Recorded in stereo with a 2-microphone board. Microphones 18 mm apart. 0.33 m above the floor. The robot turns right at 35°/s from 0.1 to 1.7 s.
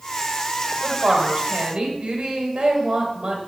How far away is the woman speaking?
About 1.6 m.